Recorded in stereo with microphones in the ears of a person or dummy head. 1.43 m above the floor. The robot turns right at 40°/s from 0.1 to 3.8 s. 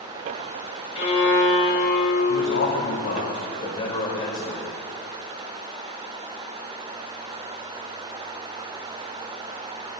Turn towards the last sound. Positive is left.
turn(degrees=150)